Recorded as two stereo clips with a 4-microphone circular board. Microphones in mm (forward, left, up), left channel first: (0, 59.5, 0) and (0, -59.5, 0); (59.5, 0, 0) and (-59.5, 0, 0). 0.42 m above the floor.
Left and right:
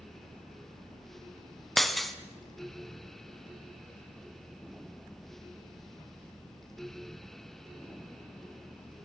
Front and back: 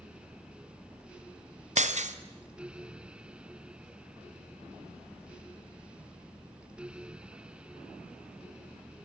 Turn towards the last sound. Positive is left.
turn(degrees=180)